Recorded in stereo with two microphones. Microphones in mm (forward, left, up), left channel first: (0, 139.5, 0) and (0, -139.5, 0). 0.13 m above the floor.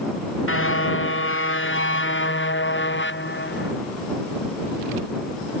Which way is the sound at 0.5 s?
50° left (ahead or behind).